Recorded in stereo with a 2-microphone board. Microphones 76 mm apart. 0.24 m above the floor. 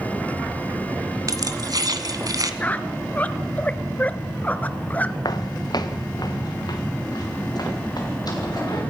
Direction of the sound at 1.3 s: 50° right (ahead or behind).